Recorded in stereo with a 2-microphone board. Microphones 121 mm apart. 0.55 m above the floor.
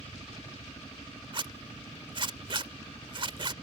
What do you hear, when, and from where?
0.0 s a helicopter: 25° left (ahead or behind); by 3.6 s 40° left (ahead or behind)
1.3 s a zipper: 45° right (ahead or behind)